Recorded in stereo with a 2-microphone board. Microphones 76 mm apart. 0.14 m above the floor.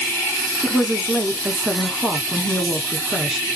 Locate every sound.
0.6 s a woman speaking: 10° right (ahead or behind), 1.1 m